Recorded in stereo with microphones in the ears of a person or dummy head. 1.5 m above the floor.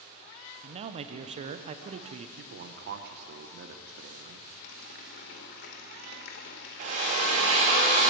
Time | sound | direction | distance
0.6 | a man speaking | 35° right (ahead or behind) | 0.6 m
2.4 | a man speaking | 55° right (ahead or behind) | 0.7 m
4.6 | a running tap | 50° left (ahead or behind) | 0.8 m
6.8 | a drill | 35° right (ahead or behind) | 1.2 m